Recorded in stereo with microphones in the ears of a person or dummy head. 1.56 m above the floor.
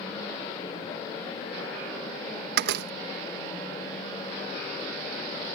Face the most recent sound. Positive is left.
turn(degrees=-65)  # may be behind; listen again after turning